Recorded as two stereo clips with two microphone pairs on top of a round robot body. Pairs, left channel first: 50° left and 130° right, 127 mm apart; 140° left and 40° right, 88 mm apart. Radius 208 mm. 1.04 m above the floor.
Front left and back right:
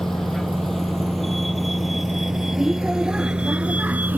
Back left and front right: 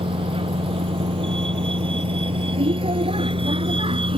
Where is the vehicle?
35° right; by 4.2 s 55° right.